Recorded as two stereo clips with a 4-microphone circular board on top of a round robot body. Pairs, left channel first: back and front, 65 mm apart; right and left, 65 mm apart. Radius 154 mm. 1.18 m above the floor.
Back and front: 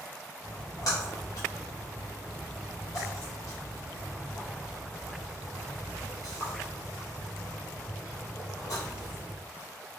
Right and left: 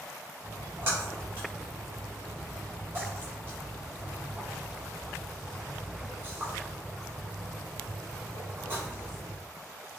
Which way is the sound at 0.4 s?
145° left.